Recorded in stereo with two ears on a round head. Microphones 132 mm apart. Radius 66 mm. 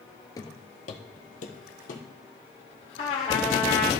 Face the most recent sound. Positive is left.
turn(degrees=45)  # may be behind; listen again after turning